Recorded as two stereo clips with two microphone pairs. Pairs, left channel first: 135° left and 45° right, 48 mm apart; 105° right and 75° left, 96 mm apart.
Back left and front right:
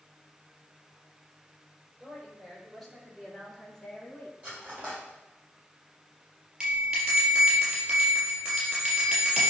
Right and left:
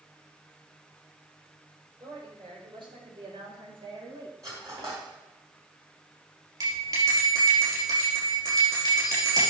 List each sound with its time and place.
2.0 s a woman speaking: 40° left, 3.5 m; by 4.3 s 90° left, 1.2 m
4.4 s cutlery clinking: 25° left, 3.5 m
6.6 s a bell: 25° left, 4 m